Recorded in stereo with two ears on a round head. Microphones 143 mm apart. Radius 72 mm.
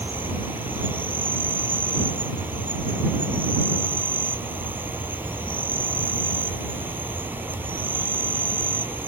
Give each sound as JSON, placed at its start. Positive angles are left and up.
{"t": 0.0, "sound": "an insect", "side_deg": -15}